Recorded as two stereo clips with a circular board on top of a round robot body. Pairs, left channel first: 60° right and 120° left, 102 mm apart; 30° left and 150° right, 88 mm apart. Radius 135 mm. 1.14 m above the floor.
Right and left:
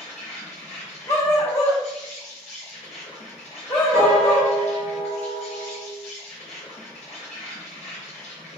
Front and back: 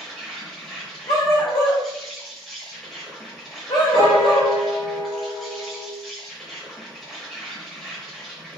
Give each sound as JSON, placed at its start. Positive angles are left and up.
{"t": 0.0, "sound": "an insect", "azimuth_deg": -55, "distance_m": 0.8}
{"t": 1.1, "sound": "a dog barking", "azimuth_deg": 0, "distance_m": 0.5}
{"t": 3.9, "sound": "a piano", "azimuth_deg": 55, "distance_m": 1.0}